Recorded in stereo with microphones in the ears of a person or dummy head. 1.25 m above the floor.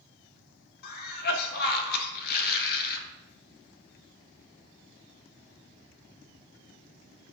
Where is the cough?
50° left (ahead or behind), 0.6 m.